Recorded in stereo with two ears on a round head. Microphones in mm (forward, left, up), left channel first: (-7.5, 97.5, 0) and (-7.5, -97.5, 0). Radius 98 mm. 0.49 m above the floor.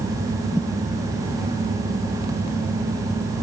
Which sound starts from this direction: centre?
A thud, at 0.5 s.